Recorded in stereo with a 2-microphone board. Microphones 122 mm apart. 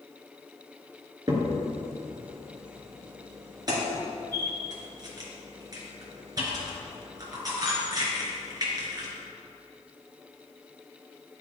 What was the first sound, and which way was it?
A crack, 35° right (ahead or behind).